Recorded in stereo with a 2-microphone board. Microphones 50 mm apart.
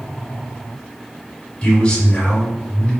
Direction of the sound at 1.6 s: 20° left (ahead or behind).